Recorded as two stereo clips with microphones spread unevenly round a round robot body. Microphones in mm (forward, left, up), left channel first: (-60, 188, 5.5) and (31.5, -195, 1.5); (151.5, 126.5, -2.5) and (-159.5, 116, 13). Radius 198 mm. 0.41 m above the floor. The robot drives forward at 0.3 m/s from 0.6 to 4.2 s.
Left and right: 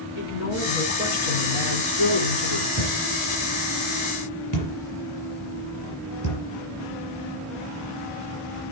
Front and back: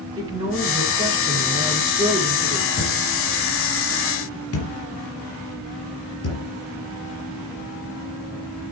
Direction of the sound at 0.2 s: 105° left.